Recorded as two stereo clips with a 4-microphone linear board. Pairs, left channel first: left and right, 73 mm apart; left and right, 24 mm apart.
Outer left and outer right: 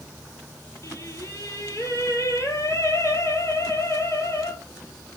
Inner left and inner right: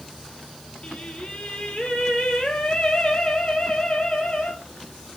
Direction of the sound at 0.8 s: 45° left (ahead or behind).